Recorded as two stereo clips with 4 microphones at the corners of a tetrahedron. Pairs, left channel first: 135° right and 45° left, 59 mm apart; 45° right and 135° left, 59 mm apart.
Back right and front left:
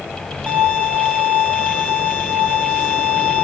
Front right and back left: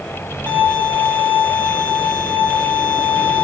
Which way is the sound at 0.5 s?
105° left.